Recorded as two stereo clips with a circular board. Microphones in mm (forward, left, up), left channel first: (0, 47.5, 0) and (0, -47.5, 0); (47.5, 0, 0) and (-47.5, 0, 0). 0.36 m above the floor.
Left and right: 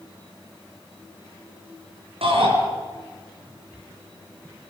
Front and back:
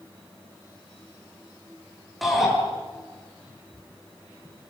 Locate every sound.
2.2 s a shout: 90° right, 5 m